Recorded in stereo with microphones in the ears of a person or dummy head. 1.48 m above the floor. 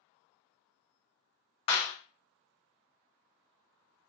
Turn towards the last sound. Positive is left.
turn(degrees=25)  # may be behind; listen again after turning